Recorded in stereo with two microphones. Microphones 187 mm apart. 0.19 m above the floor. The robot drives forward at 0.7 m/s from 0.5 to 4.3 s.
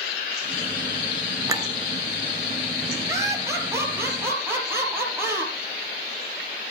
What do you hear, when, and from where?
1.5 s a clink: 15° right (ahead or behind), 2 m; by 1.7 s 20° right (ahead or behind), 1.9 m
3.1 s laughter: 15° right (ahead or behind), 4 m